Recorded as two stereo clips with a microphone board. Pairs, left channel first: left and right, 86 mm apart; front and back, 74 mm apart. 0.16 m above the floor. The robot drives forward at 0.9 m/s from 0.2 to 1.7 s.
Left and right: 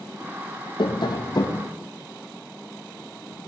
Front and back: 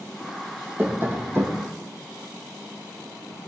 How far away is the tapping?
About 1.8 m.